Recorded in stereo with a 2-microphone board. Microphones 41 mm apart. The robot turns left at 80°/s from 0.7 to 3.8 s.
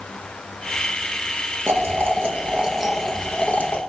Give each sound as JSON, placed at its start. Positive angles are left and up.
{"t": 1.7, "sound": "boiling", "azimuth_deg": -75, "distance_m": 0.9}